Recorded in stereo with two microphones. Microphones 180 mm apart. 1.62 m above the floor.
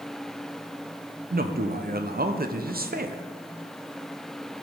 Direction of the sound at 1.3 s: 60° right (ahead or behind).